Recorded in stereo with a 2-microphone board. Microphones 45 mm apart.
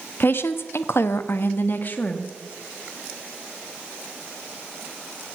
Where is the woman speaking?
50° left (ahead or behind), 1.0 m; by 2.3 s 35° left (ahead or behind), 1.2 m.